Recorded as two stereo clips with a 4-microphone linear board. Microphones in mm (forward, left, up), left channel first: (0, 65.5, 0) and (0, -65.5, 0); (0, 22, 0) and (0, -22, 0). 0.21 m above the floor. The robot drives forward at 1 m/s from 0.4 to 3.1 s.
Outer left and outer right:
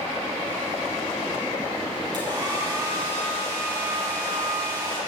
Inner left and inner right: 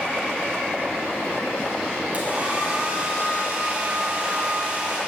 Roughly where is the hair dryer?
Right.